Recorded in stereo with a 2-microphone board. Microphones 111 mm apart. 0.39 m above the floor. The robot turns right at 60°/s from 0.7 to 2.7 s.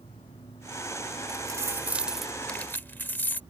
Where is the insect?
95° left; by 3.5 s 145° right.